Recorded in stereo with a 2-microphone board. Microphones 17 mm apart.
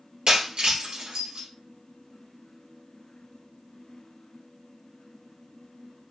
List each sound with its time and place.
0.3 s breaking glass: 65° right (ahead or behind), 2 m